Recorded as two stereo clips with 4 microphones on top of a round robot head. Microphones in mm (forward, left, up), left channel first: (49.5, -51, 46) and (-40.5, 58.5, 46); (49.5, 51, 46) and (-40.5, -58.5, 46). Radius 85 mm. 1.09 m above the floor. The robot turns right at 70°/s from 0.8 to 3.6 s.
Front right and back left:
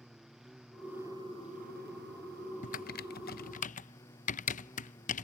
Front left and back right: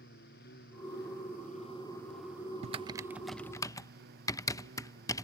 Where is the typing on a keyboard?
85° right; by 5.2 s 15° right.